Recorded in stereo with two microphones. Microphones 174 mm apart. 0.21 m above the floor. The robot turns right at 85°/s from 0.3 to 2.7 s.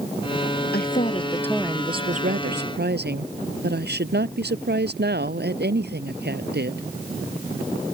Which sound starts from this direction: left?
A woman speaking, at 0.7 s.